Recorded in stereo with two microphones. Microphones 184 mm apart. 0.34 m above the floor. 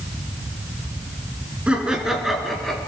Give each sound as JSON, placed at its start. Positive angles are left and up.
{"t": 1.7, "sound": "laughter", "side_deg": -5, "distance_m": 3.5}